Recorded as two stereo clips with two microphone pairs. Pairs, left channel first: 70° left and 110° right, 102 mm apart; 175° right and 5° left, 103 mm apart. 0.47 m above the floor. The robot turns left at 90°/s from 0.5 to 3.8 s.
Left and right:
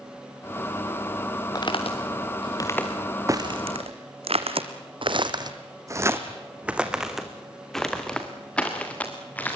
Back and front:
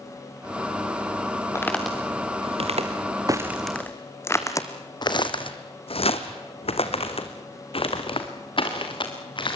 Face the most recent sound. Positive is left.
turn(degrees=145)